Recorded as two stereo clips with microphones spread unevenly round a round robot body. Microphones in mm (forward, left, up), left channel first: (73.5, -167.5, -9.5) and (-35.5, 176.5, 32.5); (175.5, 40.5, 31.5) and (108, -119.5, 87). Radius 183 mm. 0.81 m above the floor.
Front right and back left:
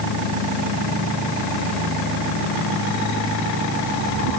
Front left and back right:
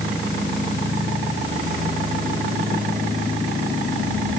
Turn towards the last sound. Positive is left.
No sound to turn to.